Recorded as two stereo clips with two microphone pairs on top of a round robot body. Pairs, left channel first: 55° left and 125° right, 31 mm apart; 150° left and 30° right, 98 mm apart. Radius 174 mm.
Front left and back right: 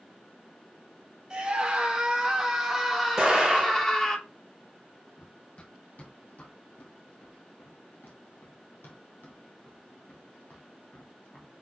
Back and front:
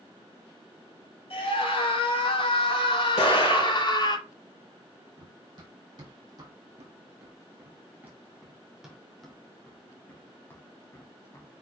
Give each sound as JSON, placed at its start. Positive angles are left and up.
{"t": 1.3, "sound": "a scream", "azimuth_deg": 160, "distance_m": 4.0}
{"t": 3.2, "sound": "an explosion", "azimuth_deg": 160, "distance_m": 4.5}
{"t": 5.2, "sound": "running footsteps", "azimuth_deg": 10, "distance_m": 3.5}